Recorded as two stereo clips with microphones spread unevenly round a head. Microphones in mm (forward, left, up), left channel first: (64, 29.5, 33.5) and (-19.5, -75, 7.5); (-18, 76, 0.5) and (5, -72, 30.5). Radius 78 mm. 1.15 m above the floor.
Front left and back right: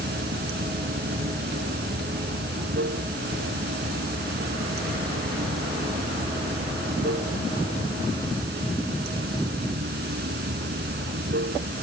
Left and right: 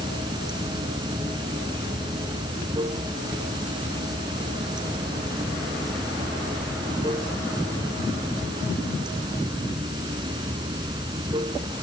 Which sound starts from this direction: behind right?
Running water, at 0.0 s.